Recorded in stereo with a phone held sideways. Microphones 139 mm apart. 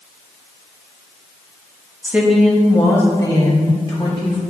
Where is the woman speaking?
15° right (ahead or behind), 1.0 m; by 4.4 s 35° left (ahead or behind), 3 m.